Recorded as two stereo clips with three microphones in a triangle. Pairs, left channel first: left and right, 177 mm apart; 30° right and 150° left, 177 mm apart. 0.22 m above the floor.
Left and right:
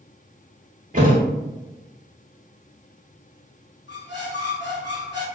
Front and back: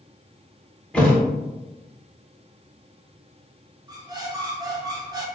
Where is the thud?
115° right, 0.7 m.